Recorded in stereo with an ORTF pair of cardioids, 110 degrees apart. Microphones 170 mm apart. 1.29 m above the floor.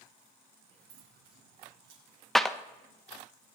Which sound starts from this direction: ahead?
A clap, at 2.4 s.